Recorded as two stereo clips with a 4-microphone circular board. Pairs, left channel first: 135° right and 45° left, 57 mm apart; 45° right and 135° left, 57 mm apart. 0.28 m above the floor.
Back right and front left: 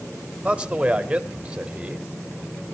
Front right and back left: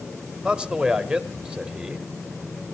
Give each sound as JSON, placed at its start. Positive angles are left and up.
{"t": 0.4, "sound": "a man speaking", "azimuth_deg": 85, "distance_m": 1.3}